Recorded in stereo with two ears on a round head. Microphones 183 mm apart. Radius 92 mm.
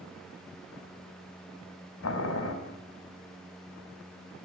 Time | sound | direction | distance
2.0 | boiling | 85° left | 4 m